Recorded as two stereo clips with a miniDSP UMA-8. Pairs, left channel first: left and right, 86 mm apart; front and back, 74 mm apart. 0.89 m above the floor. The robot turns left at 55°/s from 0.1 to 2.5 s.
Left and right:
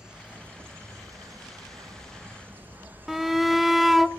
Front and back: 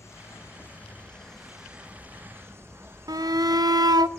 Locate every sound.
0.0 s an insect: 15° right, 0.7 m; by 4.2 s 145° right, 0.7 m
3.1 s a shout: straight behind, 0.6 m